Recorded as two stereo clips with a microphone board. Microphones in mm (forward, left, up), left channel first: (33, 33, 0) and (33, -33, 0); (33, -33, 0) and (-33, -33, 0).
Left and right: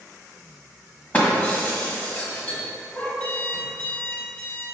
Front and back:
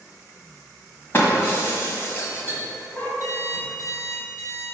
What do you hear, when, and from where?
1.1 s breaking glass: 35° left, 1.3 m
3.2 s an alarm clock: 25° left, 1.5 m